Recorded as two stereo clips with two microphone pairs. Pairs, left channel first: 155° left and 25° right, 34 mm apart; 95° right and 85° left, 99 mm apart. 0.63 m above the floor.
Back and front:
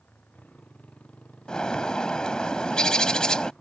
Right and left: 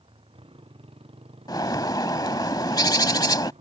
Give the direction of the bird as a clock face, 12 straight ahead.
5 o'clock.